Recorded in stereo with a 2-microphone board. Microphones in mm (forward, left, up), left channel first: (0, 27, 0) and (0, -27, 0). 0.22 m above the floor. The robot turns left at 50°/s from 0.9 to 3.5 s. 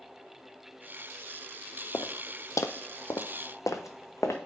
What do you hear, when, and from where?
1.9 s footsteps: 80° left, 0.7 m; by 4.4 s 60° left (ahead or behind), 1.2 m